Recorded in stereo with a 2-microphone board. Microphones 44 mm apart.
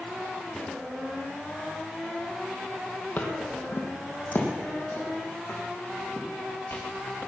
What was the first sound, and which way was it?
Footsteps, 45° left (ahead or behind).